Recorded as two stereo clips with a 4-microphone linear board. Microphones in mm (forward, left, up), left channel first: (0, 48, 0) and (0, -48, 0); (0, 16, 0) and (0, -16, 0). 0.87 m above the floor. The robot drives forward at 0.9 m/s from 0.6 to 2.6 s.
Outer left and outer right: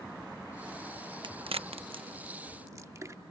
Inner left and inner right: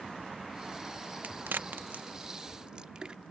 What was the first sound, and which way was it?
A crack, 55° right (ahead or behind).